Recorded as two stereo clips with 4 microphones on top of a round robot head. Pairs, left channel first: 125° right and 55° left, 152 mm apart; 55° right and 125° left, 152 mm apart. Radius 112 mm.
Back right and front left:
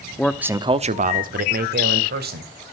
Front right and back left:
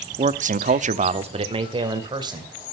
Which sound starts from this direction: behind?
A man speaking, at 0.2 s.